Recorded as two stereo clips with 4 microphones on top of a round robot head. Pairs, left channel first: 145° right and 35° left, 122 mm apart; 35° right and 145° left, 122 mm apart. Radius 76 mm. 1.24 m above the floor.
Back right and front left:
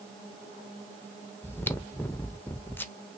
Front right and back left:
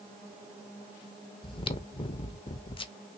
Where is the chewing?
75° right, 0.7 m.